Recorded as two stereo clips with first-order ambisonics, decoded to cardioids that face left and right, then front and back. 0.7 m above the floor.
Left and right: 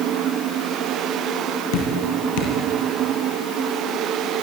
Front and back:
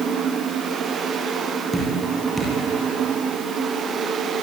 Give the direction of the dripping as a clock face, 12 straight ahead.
9 o'clock.